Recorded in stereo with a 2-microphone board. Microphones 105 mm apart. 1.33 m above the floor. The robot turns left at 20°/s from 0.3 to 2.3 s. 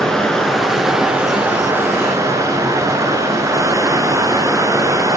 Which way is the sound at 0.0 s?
5° left.